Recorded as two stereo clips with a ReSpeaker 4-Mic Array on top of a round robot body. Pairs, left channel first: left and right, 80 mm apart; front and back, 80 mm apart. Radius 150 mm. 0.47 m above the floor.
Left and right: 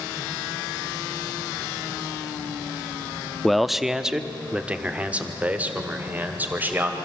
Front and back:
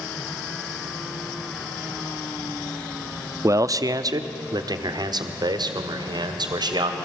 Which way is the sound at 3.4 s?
175° left.